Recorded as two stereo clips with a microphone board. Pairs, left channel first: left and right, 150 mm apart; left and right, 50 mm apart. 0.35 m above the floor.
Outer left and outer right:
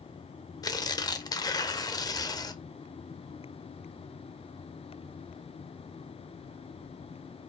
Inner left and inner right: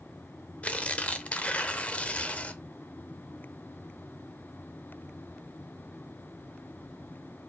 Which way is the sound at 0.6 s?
25° left (ahead or behind).